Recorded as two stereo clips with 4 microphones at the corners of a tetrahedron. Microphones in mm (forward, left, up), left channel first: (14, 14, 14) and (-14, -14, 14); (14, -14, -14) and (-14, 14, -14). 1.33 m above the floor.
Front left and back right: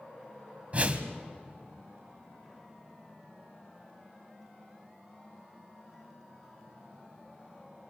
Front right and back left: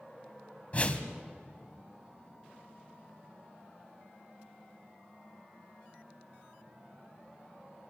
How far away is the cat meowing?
No cat meowing in this recording.